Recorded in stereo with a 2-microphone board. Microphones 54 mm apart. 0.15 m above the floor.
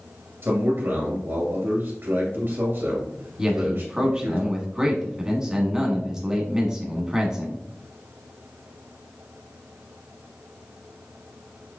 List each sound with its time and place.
0.4 s a man speaking: 50° right (ahead or behind), 2.5 m
3.4 s a man speaking: 15° right (ahead or behind), 1.1 m